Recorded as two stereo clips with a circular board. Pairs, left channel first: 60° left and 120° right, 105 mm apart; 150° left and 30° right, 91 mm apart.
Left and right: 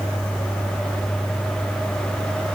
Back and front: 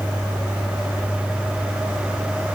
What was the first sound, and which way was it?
Only background noise.